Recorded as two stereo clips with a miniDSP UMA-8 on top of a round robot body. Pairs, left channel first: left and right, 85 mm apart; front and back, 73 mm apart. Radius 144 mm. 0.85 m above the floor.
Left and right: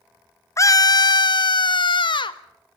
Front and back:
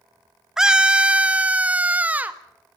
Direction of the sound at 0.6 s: 100° left.